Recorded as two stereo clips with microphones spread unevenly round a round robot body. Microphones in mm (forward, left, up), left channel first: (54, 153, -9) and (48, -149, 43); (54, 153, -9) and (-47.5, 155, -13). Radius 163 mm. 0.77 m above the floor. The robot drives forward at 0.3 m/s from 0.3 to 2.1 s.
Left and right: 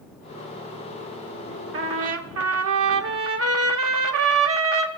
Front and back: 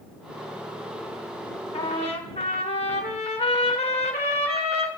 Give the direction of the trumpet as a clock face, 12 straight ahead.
1 o'clock.